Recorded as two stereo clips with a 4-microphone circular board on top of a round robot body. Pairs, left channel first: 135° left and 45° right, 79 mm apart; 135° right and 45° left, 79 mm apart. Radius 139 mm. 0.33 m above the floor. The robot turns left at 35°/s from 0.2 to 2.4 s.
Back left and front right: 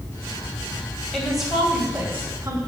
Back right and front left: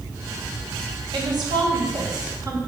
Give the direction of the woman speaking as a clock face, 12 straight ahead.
10 o'clock.